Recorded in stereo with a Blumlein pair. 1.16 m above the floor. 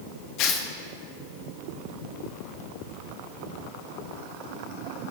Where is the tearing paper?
40° left, 1.5 m.